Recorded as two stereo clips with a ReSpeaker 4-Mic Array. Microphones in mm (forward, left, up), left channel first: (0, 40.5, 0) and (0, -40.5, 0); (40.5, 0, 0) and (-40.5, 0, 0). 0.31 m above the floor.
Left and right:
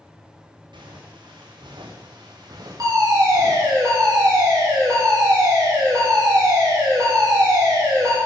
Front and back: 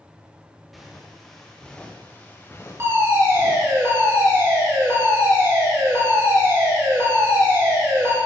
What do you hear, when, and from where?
0.7 s footsteps: 90° right, 3 m; by 3.8 s 35° right, 2 m
2.8 s a fire alarm: 125° right, 6.5 m